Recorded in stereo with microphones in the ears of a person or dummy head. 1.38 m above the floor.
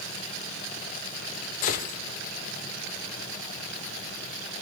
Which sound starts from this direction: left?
A gunshot, at 1.6 s.